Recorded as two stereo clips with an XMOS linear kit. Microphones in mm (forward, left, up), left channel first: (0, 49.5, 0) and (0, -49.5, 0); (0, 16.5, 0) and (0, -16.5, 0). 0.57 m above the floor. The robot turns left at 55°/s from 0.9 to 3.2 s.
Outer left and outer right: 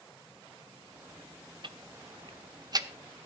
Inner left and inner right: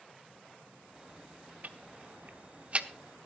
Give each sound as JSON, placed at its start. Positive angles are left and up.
{"t": 1.6, "sound": "ticking", "side_deg": -50, "distance_m": 1.0}